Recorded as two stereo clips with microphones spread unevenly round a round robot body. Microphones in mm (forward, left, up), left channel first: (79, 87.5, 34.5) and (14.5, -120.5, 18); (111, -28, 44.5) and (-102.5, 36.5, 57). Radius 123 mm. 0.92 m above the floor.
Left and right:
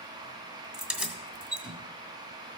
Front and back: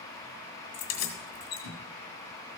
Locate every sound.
0.7 s keys jangling: 25° right, 2 m